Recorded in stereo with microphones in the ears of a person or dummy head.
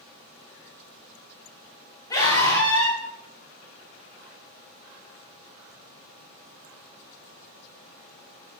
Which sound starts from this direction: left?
A scream, at 2.1 s.